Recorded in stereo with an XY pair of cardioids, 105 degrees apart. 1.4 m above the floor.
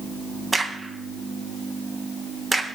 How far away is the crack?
About 1.0 m.